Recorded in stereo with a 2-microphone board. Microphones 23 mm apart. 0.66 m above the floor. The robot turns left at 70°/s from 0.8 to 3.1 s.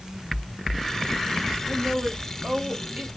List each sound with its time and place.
1.6 s a woman speaking: 25° right, 1.8 m; by 3.1 s 130° right, 1.8 m